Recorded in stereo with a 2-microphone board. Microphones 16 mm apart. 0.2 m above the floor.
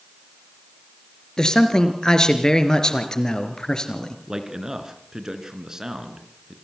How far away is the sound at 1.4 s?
About 2.5 m.